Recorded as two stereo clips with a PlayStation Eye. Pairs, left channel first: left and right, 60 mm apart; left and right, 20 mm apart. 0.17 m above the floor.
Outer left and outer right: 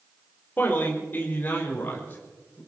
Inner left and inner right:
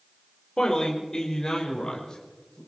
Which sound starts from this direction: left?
A man speaking, at 0.6 s.